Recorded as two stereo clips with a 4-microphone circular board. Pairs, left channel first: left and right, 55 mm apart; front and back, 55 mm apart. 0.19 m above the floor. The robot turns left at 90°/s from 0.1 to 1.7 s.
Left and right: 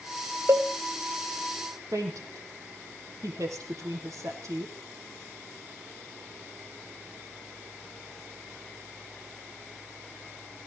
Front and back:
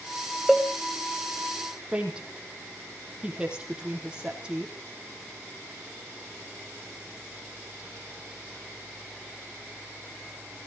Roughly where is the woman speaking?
Right.